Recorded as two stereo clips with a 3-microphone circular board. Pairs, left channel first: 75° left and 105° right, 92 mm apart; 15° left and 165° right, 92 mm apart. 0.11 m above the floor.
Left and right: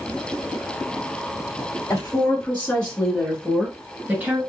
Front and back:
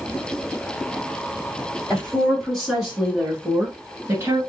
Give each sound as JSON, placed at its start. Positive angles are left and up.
{"t": 1.9, "sound": "a woman speaking", "azimuth_deg": 95, "distance_m": 1.8}